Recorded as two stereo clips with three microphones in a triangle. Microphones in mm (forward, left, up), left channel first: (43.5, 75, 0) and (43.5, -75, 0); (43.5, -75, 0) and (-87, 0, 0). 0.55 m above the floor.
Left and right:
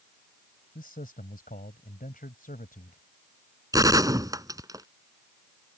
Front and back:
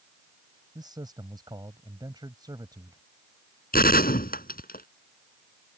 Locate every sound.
0.8 s a man speaking: 90° left
3.7 s a gunshot: 25° right